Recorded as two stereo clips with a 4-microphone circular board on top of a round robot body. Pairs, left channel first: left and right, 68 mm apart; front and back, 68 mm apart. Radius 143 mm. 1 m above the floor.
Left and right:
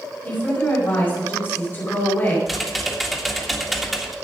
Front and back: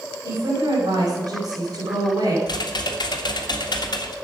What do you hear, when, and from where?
0.2 s a woman speaking: 155° left, 4.5 m
2.5 s typing on a keyboard: straight ahead, 1.7 m